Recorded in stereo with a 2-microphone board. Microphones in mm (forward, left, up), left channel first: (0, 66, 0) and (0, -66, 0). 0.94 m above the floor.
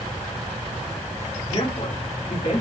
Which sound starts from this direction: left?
A man speaking, at 1.5 s.